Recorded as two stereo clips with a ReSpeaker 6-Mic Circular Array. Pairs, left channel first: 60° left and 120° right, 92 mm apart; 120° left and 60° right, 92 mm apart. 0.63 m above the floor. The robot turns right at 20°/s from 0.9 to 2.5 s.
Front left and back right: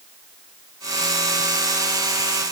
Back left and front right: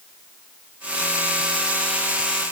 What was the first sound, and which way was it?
Only background noise.